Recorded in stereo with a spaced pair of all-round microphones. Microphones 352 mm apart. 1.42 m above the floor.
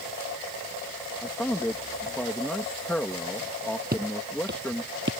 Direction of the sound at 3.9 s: 25° right (ahead or behind).